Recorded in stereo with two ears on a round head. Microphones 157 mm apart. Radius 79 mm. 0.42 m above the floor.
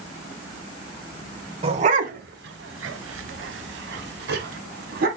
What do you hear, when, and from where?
1.6 s a dog barking: 35° right (ahead or behind), 0.9 m; by 5.1 s 55° right (ahead or behind), 1.5 m